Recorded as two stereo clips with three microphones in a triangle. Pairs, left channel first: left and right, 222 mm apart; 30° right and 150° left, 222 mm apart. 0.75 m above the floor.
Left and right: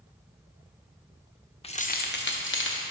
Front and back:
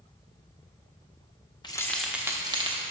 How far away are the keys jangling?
About 0.5 m.